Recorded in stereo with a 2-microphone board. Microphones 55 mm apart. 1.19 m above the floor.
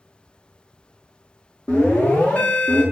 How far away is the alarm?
About 1.3 m.